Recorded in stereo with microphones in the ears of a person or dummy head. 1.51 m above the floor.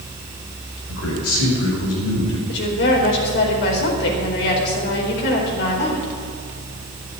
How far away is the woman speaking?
About 4.5 m.